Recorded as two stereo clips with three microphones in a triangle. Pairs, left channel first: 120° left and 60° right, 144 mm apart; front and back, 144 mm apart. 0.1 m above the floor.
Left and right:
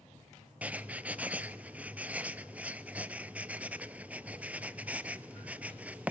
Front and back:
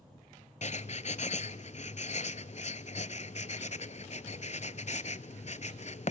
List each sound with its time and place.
0.6 s writing: 15° left, 0.6 m